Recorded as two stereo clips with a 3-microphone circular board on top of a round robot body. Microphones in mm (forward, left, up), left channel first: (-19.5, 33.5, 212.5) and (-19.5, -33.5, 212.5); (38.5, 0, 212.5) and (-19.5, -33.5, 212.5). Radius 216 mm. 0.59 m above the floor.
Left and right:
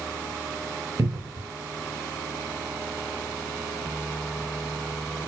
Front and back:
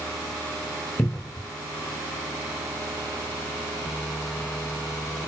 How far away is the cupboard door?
About 0.5 m.